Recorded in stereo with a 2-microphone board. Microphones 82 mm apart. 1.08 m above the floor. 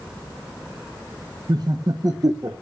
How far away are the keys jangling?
I don't hear keys jangling.